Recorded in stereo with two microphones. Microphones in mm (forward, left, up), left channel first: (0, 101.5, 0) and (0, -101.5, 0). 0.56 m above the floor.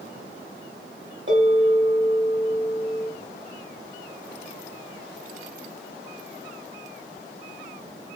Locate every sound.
1.3 s a bell: 70° right (ahead or behind), 1.6 m